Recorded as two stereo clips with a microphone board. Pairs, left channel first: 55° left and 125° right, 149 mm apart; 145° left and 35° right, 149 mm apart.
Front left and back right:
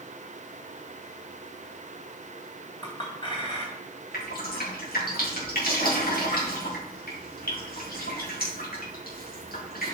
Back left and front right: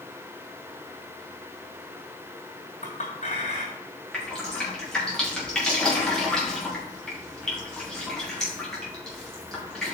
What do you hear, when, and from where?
2.8 s a clink: 115° left, 3 m
4.1 s dripping: 60° left, 3.5 m